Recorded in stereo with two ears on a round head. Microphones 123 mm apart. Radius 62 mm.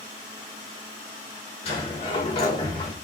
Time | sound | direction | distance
1.6 | a sliding door | 45° left (ahead or behind) | 4 m